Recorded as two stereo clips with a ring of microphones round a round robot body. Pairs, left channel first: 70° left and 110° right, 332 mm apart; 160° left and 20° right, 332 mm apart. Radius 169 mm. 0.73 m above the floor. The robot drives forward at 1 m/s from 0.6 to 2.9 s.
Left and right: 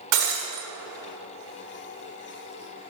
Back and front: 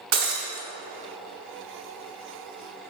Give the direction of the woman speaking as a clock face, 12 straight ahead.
No woman speaking in this recording.